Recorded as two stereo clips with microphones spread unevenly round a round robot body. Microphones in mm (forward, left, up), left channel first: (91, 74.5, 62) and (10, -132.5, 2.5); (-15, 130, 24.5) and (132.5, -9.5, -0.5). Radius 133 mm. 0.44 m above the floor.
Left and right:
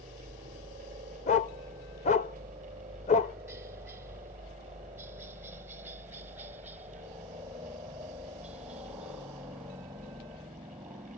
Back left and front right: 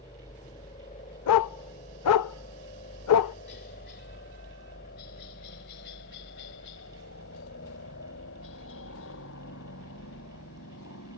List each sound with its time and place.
0.0 s a helicopter: 160° right; by 11.2 s 170° left
1.3 s a dog barking: 140° left